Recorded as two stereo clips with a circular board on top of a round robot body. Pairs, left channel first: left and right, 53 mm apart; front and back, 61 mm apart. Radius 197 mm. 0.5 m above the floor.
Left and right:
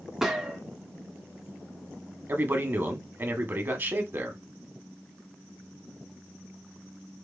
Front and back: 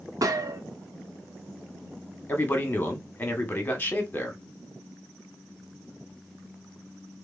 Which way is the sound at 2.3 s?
55° right.